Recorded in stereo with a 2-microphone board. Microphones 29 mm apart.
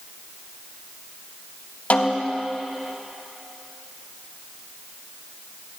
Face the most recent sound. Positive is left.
turn(degrees=55)  # may be behind; listen again after turning